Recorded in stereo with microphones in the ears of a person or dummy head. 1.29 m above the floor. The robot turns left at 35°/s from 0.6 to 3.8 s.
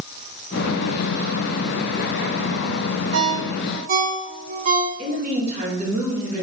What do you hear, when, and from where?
3.1 s a ringtone: 70° right (ahead or behind), 0.7 m; by 4.9 s 50° right (ahead or behind), 0.7 m
5.0 s a woman speaking: 45° right (ahead or behind), 1.4 m